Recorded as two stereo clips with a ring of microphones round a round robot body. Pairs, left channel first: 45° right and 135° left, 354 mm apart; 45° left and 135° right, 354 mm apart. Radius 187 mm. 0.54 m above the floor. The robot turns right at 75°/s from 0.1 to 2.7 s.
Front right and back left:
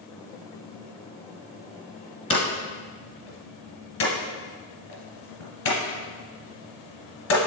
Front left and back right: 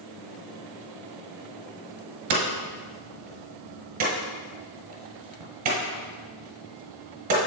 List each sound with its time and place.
2.3 s hammering: 120° right, 1.9 m; by 7.4 s 90° right, 1.9 m